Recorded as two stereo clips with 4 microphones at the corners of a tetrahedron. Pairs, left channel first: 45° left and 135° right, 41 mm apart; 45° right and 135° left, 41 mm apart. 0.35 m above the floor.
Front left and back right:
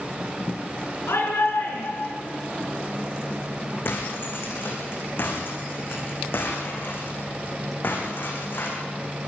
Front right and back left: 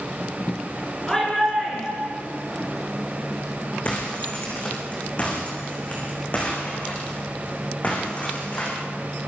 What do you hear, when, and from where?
1.1 s a shout: 35° left, 4.5 m
3.9 s breaking glass: 10° left, 8 m